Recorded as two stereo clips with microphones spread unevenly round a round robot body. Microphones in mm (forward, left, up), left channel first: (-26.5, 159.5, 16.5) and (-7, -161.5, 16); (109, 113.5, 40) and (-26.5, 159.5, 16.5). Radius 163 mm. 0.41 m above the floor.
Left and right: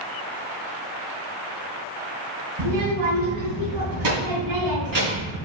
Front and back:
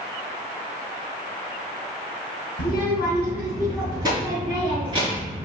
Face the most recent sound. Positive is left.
turn(degrees=-115)